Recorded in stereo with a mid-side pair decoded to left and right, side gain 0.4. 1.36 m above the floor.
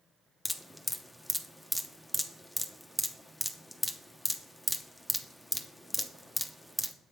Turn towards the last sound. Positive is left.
turn(degrees=0)